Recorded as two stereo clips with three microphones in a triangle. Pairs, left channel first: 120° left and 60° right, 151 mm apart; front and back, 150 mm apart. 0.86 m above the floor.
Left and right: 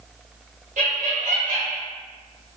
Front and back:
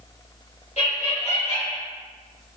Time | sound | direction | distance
0.8 | laughter | 35° right | 1.2 m